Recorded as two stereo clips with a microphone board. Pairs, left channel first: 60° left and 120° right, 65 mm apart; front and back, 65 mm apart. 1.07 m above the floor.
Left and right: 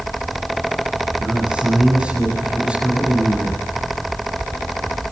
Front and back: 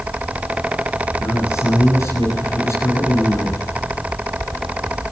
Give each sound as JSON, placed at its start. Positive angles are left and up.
{"t": 1.2, "sound": "a man speaking", "azimuth_deg": -45, "distance_m": 9.5}